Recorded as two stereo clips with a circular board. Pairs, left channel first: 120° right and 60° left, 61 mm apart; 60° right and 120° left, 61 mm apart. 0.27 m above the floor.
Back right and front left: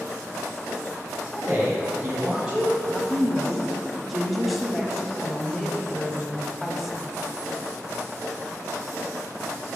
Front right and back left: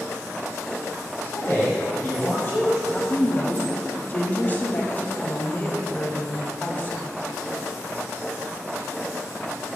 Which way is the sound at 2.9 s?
25° right.